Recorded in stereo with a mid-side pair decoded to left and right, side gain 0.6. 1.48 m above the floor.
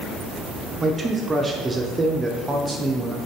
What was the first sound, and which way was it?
A man speaking, 20° right.